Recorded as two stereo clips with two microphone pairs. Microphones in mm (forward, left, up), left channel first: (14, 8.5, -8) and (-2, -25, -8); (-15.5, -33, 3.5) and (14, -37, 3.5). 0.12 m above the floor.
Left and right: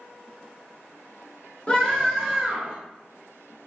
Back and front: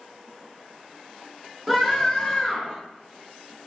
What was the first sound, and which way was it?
A scream, 80° left.